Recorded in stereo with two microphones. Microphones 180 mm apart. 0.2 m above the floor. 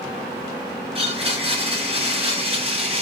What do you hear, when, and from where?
0.9 s a blender: 35° right (ahead or behind), 1.5 m